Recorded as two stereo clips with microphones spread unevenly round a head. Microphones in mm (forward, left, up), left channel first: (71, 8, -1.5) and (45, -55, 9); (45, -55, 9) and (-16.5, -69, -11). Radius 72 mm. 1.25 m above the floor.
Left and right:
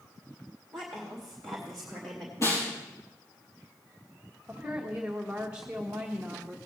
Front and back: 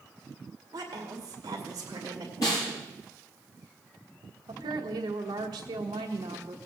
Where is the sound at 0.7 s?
155° left, 2 m.